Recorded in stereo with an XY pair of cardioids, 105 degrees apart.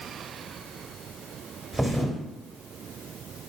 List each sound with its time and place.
1.7 s a thud: 5° right, 1.0 m